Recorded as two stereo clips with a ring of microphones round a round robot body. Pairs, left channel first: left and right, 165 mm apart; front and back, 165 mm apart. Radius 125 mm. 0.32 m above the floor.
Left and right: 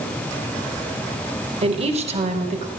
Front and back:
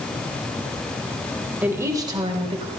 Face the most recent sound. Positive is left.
turn(degrees=-130)